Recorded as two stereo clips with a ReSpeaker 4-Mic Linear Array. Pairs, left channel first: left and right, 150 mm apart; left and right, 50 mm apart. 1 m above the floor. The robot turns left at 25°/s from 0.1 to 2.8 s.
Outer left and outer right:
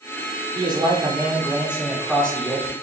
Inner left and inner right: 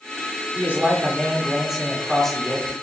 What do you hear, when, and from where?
0.6 s a man speaking: 145° right, 3.5 m; by 2.7 s 160° left, 3.5 m